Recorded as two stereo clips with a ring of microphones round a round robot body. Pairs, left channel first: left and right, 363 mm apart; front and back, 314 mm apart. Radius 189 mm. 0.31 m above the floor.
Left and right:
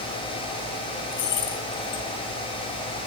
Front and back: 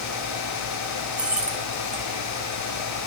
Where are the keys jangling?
95° left, 2.5 m.